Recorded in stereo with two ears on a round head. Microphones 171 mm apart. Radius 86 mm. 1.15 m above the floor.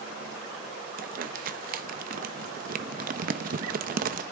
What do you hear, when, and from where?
1.0 s crumpling: 45° right (ahead or behind), 0.8 m